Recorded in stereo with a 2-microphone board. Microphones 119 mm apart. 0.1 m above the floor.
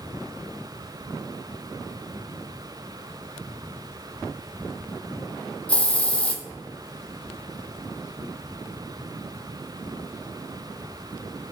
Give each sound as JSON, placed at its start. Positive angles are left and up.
{"t": 5.7, "sound": "a hiss", "side_deg": 10, "distance_m": 0.5}